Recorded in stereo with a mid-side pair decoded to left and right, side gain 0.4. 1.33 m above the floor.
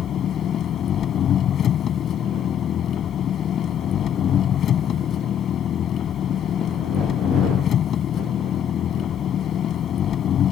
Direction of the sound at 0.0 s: 65° left.